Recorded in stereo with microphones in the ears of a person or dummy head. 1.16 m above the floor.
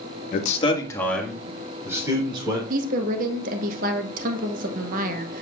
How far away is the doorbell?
No doorbell in this recording.